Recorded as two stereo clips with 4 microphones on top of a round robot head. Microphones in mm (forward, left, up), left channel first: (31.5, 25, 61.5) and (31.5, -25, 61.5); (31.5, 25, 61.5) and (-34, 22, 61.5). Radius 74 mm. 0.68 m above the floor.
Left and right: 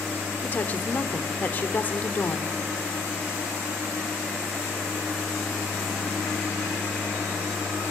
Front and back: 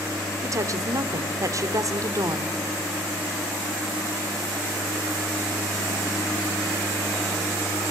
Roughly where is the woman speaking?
Behind left.